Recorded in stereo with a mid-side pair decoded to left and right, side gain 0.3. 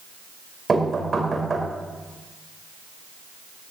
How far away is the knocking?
About 4.5 m.